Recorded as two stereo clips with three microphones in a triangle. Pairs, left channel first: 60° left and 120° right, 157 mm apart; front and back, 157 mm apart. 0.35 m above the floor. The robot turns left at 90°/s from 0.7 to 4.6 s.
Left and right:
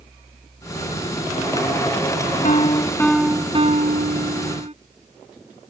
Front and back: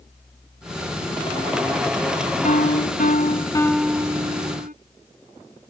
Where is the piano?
35° left; by 4.7 s 160° right.